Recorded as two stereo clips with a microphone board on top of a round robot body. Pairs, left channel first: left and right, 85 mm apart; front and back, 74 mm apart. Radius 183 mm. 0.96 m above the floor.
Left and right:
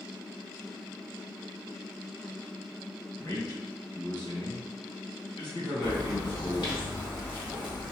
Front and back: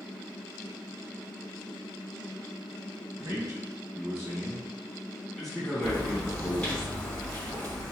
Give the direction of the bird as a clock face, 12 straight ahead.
10 o'clock.